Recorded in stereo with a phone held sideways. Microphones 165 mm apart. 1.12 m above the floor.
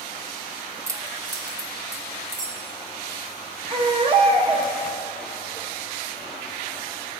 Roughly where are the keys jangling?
Centre.